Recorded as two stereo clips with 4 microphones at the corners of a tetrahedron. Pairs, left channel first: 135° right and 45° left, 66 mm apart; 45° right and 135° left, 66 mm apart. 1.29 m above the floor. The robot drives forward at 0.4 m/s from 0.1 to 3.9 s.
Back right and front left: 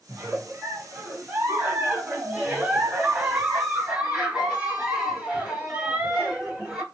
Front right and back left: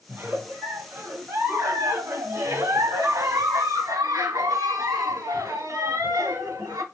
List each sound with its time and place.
0.1 s a giggle: 85° left, 2 m; by 6.8 s 125° left, 2.5 m